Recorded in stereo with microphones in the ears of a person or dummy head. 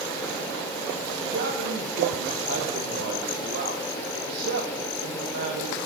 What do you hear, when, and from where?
1.2 s a man speaking: 70° right (ahead or behind), 1.1 m